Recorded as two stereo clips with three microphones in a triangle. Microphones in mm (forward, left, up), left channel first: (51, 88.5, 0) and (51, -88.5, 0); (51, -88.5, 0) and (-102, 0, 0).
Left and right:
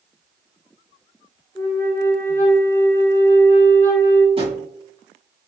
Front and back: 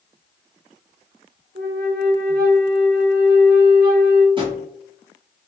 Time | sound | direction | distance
1.6 | a flute | 165° left | 1.0 m
4.4 | a drawer | 150° right | 1.2 m